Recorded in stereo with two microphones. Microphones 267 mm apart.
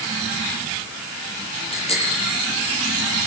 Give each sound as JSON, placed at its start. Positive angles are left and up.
{"t": 1.7, "sound": "a bicycle bell", "side_deg": 20, "distance_m": 9.5}